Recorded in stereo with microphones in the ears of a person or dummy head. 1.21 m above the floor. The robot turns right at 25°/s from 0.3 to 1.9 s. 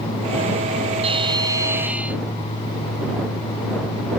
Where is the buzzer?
30° right (ahead or behind); by 2.2 s 10° right (ahead or behind).